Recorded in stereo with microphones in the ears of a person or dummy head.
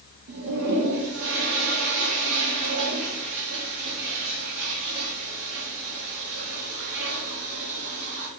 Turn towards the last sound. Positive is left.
turn(degrees=-70)  # may be behind; listen again after turning